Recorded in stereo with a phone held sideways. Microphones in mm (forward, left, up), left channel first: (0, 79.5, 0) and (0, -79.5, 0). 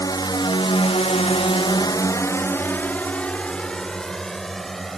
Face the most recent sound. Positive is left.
turn(degrees=0)  # may be behind; listen again after turning